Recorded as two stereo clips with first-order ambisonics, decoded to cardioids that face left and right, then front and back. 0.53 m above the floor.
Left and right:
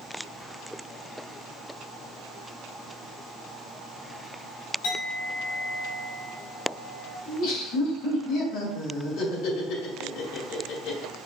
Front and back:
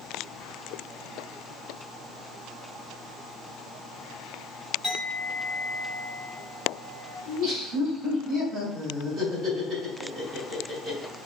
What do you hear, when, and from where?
4.8 s a clink: 100° left, 2 m
7.3 s laughter: 125° left, 2 m